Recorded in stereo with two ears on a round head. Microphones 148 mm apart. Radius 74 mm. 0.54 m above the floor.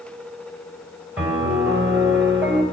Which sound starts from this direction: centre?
A piano, at 1.2 s.